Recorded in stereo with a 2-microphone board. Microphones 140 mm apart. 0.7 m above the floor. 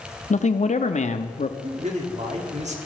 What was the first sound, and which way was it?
A man speaking, 55° left (ahead or behind).